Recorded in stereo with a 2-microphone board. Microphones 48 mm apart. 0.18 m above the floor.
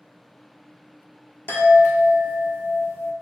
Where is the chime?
45° left (ahead or behind), 1.1 m.